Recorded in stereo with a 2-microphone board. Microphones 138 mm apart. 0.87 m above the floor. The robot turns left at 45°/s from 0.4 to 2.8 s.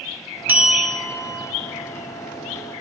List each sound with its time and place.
0.5 s a bell: 165° right, 1.9 m; by 1.5 s 150° left, 1.9 m